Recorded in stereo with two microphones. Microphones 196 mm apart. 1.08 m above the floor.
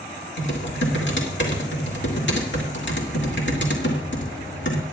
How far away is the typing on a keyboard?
About 2.0 m.